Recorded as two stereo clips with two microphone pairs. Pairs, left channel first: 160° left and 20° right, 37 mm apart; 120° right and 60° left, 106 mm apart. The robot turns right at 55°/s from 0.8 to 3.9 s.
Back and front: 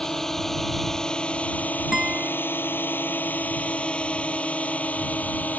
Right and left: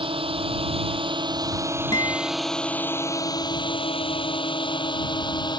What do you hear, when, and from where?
0.0 s a drone: 85° left; by 5.6 s 160° right
1.9 s a guitar: 85° right; by 2.3 s 60° right